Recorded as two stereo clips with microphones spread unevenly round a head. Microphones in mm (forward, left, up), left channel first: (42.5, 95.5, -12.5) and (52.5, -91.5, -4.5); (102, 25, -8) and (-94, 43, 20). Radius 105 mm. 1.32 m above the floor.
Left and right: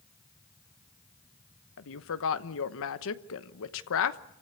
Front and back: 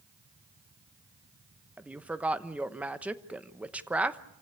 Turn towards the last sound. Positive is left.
turn(degrees=90)